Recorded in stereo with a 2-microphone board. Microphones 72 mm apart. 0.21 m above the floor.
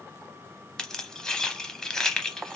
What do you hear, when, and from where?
0.8 s keys jangling: 10° left (ahead or behind), 0.7 m